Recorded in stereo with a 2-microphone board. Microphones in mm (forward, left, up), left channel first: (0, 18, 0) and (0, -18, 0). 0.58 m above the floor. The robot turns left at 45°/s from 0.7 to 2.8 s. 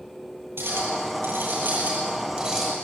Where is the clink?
75° right, 8.5 m; by 2.7 s 165° right, 8.5 m.